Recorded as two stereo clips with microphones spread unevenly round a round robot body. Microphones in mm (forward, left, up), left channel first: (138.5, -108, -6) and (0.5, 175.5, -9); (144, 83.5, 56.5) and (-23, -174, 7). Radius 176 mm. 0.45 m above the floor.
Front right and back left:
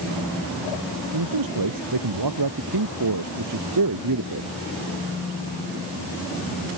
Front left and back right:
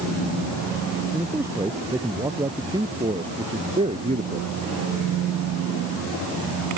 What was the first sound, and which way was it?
A man speaking, 150° left.